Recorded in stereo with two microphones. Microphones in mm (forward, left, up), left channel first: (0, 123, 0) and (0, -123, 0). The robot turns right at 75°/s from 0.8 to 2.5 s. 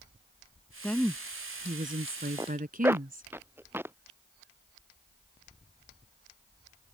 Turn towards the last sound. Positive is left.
turn(degrees=-10)  # may be behind; listen again after turning